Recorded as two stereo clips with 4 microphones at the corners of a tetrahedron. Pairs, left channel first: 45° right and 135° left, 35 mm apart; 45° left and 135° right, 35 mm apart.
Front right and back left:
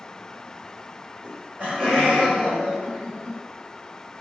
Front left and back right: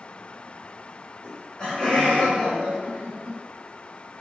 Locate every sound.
1.2 s laughter: 110° left, 1.6 m; by 3.4 s 30° left, 1.3 m